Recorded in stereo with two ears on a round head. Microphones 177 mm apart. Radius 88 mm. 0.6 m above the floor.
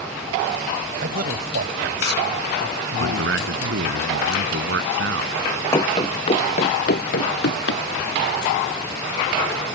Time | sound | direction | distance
1.0 | a man speaking | 50° right (ahead or behind) | ?
3.0 | a man speaking | 65° right (ahead or behind) | ?
5.7 | running footsteps | 20° left (ahead or behind) | ?